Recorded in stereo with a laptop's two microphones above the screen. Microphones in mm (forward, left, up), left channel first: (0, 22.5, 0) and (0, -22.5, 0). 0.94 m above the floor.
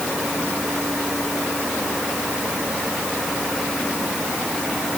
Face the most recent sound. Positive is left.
No sound to turn to.